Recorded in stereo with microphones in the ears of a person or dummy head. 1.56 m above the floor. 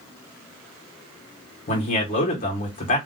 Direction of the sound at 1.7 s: 35° left (ahead or behind).